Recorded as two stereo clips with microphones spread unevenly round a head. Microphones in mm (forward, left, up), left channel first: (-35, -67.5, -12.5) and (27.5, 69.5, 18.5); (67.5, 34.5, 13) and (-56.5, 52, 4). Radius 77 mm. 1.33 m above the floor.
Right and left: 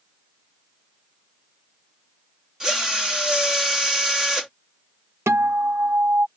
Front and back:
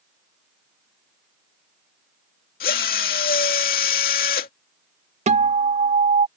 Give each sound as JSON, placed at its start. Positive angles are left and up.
{"t": 2.6, "sound": "a drill", "azimuth_deg": -20}
{"t": 5.3, "sound": "a guitar", "azimuth_deg": 145}